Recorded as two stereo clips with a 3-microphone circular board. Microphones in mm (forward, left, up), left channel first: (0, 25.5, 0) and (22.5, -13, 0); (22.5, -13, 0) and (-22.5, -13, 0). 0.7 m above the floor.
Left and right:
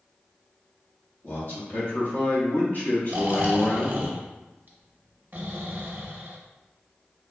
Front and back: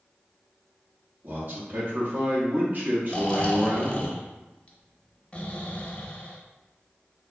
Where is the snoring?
50° right, 0.5 m.